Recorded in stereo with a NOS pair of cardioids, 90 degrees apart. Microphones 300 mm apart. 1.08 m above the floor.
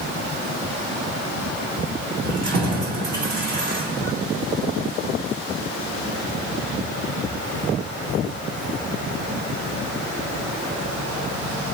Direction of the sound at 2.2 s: 70° right.